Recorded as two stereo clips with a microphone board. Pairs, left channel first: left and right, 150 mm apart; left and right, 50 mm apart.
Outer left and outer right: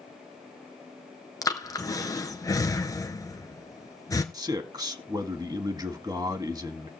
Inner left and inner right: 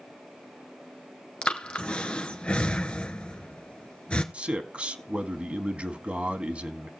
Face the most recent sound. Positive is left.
turn(degrees=-25)  # may be behind; listen again after turning